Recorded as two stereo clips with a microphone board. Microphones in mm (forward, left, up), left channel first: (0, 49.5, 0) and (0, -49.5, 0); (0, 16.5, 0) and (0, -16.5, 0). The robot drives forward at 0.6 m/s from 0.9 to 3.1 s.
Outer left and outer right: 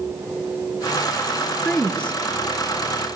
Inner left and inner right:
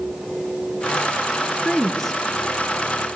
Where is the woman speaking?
15° left (ahead or behind), 3 m.